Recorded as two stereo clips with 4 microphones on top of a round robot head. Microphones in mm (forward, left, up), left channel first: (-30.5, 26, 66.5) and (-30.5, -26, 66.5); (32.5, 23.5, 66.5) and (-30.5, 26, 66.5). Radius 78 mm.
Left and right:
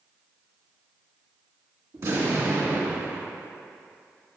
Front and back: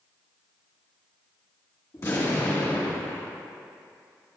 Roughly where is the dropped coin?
No dropped coin in this recording.